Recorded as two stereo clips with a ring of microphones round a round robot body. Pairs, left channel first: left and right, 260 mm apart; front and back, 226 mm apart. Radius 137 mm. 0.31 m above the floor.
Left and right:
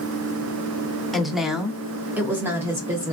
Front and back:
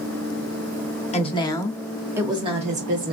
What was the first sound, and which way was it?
A woman speaking, straight ahead.